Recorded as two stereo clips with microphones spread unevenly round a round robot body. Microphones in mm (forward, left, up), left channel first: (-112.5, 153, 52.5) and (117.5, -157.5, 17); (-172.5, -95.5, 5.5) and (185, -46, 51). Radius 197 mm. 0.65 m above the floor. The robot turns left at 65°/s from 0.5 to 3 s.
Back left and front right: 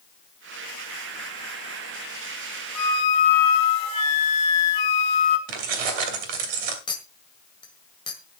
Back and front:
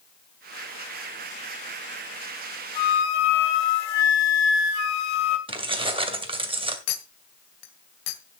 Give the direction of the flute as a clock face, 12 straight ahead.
6 o'clock.